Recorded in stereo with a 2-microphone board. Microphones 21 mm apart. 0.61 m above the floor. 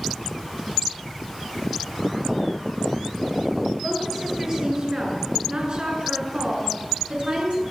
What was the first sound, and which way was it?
A woman speaking, 25° right (ahead or behind).